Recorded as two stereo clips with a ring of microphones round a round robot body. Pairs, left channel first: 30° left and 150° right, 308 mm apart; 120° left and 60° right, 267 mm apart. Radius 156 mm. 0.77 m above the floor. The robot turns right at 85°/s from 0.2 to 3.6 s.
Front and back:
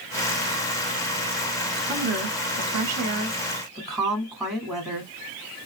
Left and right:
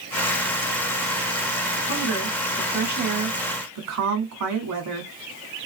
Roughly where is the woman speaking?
Behind left.